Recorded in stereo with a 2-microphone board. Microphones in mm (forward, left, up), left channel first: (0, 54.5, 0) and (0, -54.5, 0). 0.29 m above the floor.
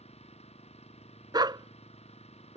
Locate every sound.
0.0 s an engine running: 85° left
1.3 s a dog barking: 45° right (ahead or behind)